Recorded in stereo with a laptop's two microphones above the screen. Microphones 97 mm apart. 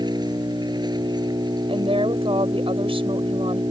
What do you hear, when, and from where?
0.0 s an engine running: 50° right (ahead or behind)
1.7 s a woman speaking: 85° right